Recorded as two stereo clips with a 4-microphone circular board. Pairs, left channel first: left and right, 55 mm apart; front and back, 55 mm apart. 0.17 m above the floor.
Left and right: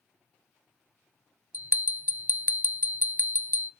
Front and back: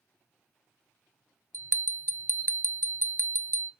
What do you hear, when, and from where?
1.5 s a bell: 145° right, 0.7 m